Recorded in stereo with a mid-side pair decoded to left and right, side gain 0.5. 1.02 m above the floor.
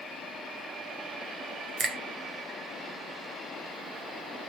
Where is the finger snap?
40° right, 0.8 m.